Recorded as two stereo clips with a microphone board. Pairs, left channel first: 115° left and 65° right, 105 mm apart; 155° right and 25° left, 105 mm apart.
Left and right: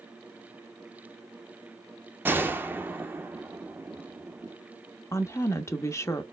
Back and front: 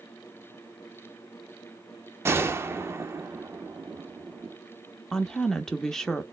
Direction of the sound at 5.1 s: 120° left.